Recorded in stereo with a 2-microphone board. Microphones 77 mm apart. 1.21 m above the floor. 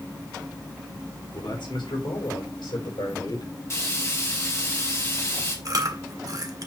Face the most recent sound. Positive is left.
turn(degrees=-50)  # may be behind; listen again after turning